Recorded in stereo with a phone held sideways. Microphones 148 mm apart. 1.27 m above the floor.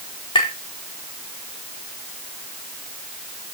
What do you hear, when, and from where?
0.3 s tapping: 35° left (ahead or behind), 4.5 m